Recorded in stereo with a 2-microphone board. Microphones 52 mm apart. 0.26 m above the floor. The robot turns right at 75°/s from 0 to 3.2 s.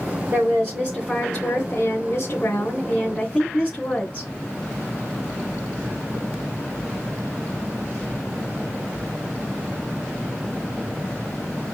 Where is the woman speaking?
60° right, 3 m; by 4.3 s 155° left, 3 m.